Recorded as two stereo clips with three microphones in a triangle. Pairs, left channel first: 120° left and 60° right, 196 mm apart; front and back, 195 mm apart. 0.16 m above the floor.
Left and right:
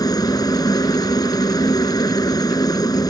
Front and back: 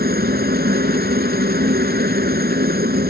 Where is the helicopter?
175° right.